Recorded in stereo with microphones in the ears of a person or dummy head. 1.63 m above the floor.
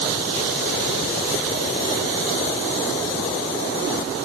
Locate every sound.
Only background noise.